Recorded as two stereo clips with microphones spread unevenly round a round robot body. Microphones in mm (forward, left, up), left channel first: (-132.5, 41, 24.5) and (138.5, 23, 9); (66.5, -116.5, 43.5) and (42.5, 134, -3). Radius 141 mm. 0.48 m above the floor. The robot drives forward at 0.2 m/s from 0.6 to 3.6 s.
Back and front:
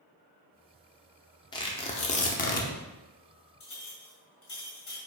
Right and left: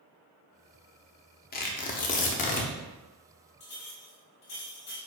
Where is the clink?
155° right, 1.8 m.